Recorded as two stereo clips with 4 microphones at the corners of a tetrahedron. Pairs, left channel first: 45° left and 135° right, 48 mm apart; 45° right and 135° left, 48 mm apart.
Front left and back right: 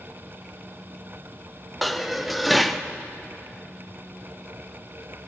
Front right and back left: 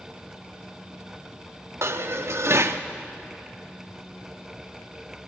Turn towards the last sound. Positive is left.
turn(degrees=135)